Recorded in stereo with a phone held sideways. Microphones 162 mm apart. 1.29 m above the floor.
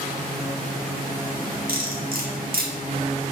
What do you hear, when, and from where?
1.7 s cutlery clinking: 75° right (ahead or behind), 1.8 m